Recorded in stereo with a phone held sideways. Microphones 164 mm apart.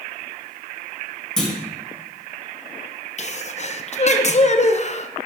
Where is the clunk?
5° left (ahead or behind), 1.9 m.